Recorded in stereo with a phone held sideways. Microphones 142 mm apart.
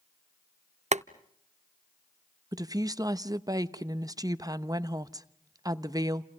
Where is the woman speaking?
25° right (ahead or behind), 0.8 m.